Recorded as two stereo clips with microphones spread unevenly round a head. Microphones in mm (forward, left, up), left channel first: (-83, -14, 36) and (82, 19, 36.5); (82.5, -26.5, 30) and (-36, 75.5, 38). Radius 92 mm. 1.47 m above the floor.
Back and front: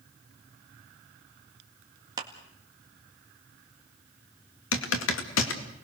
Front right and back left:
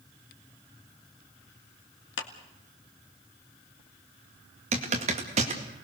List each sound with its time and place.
2.2 s a clap: 55° right, 1.9 m
4.7 s typing on a keyboard: 165° right, 2 m